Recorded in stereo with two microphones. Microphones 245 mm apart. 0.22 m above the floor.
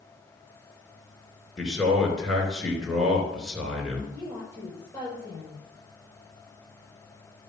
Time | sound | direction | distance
1.6 | a man speaking | centre (ahead or behind) | 3 m
4.1 | a woman speaking | 10° left (ahead or behind) | 5.5 m